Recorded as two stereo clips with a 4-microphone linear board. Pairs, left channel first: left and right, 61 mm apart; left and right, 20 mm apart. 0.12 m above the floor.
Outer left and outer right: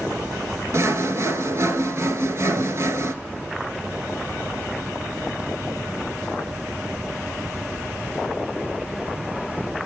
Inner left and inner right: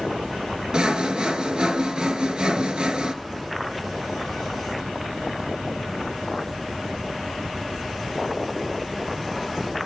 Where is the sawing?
50° right (ahead or behind), 0.6 m.